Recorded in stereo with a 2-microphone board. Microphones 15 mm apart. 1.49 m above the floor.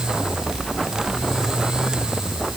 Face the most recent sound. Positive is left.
No sound to turn to.